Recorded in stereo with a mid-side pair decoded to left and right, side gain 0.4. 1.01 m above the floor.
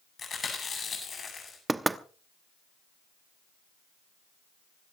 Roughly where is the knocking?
Ahead.